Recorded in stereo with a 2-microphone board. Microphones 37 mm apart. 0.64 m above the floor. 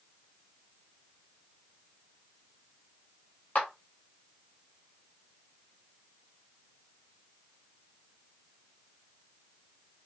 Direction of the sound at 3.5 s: 40° left (ahead or behind).